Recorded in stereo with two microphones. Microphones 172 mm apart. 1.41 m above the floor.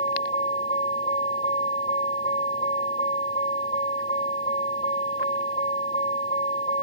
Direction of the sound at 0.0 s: 40° left (ahead or behind).